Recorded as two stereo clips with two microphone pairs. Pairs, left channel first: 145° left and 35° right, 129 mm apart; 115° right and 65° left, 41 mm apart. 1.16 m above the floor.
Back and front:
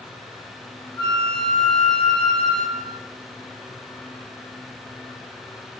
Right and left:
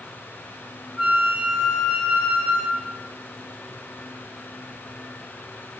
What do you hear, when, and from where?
1.0 s a flute: 110° left, 0.6 m